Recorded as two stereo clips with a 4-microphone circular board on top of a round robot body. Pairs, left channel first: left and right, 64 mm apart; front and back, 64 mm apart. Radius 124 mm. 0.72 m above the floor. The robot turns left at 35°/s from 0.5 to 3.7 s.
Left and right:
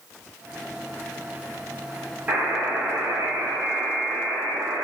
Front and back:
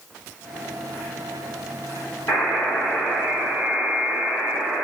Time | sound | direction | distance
2.3 | a buzzer | 20° right | 1.5 m